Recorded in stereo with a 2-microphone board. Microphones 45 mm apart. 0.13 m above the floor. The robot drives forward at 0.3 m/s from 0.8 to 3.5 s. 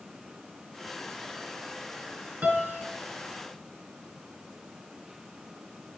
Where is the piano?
40° right (ahead or behind), 0.9 m; by 2.8 s 35° right (ahead or behind), 0.9 m.